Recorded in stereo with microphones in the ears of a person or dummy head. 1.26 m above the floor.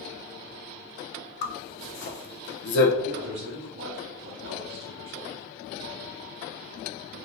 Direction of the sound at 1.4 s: 60° left (ahead or behind).